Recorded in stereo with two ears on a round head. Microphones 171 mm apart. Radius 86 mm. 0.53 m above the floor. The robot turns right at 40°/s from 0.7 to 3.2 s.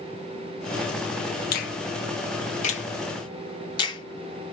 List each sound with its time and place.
1.5 s a finger snap: 50° left (ahead or behind), 0.8 m; by 4.5 s 25° left (ahead or behind), 0.8 m